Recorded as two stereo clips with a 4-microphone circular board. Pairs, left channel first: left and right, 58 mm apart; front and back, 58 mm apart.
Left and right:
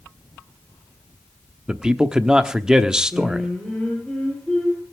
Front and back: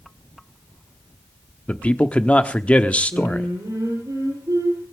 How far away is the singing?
About 10 m.